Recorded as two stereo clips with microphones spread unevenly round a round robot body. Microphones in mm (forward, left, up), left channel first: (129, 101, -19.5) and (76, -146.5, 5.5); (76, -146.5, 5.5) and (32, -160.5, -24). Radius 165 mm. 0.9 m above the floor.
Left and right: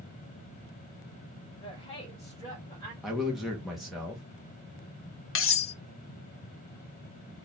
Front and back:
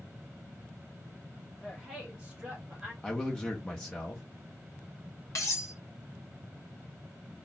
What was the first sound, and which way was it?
A woman speaking, 140° left.